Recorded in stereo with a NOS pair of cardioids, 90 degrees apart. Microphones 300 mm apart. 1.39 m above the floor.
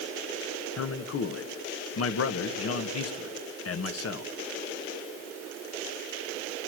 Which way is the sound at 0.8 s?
50° left.